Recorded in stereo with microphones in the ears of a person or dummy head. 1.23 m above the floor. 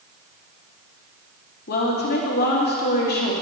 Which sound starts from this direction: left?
A woman speaking, at 1.7 s.